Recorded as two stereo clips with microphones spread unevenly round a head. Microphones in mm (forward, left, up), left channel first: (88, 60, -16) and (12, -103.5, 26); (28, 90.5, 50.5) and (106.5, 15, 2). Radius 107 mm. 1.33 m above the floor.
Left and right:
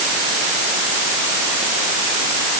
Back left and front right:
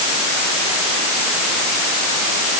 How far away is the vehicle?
I don't hear a vehicle.